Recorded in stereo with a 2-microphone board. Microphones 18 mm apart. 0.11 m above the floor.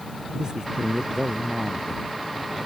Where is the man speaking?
50° right (ahead or behind).